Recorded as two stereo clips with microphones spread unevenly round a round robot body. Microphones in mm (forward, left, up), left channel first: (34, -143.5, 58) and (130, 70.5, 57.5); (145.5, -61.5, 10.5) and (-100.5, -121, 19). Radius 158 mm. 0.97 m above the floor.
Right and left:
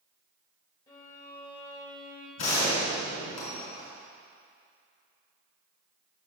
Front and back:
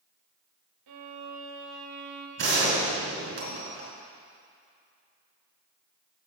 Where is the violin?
170° left, 0.8 m.